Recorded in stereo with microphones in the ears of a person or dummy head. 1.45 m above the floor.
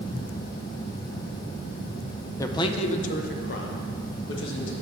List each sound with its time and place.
2.4 s a man speaking: 15° left (ahead or behind), 0.6 m; by 4.7 s 70° left (ahead or behind), 1.7 m